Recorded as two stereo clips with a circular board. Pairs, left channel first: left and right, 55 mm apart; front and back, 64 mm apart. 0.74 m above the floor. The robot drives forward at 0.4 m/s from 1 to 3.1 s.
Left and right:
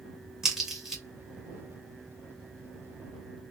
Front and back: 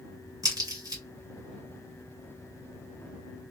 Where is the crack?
170° right, 2.5 m.